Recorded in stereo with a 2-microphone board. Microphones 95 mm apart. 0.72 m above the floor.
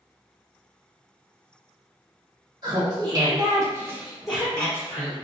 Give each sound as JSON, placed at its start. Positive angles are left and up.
{"t": 2.6, "sound": "laughter", "side_deg": -45, "distance_m": 1.3}